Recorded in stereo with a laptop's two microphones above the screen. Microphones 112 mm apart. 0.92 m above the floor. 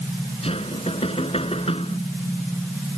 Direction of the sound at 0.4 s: 60° left (ahead or behind).